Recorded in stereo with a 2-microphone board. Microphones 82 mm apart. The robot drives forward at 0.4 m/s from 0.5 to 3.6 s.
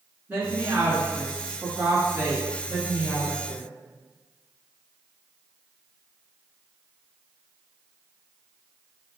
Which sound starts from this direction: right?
A woman speaking, at 0.3 s.